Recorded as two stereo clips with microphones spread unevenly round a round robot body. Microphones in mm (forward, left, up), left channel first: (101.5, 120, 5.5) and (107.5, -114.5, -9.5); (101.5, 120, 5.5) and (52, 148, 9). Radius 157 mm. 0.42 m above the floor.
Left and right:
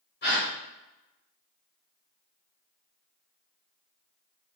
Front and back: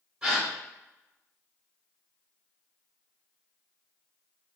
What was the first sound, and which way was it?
A gasp, 80° left.